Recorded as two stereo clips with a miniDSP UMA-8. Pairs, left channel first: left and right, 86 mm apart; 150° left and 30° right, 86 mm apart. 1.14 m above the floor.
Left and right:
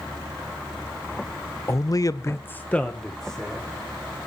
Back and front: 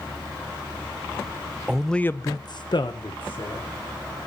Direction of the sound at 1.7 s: 45° left.